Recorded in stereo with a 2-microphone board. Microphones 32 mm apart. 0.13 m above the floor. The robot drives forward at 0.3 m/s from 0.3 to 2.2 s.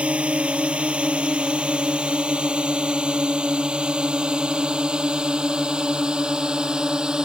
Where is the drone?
35° right (ahead or behind); by 7.2 s 25° right (ahead or behind).